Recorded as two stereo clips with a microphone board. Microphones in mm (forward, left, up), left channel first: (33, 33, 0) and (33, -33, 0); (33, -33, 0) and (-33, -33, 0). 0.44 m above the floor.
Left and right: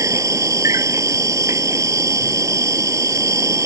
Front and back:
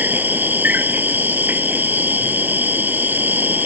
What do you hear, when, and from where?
0.0 s an insect: 120° right